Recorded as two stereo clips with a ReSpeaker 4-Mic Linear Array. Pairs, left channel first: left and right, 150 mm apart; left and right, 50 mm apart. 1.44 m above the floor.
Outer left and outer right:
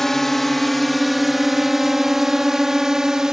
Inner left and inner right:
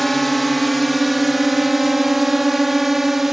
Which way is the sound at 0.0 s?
Centre (ahead or behind).